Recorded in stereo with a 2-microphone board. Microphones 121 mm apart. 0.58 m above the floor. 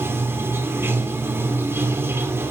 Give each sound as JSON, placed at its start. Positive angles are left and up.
{"t": 0.0, "sound": "running water", "side_deg": -20, "distance_m": 0.9}